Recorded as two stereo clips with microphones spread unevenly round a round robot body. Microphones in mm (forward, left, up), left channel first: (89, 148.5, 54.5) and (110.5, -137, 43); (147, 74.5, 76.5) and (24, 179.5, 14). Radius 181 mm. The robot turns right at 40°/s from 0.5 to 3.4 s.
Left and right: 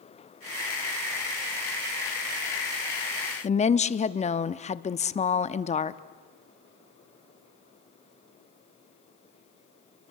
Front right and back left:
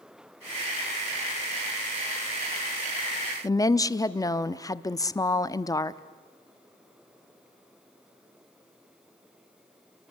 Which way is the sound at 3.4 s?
55° left.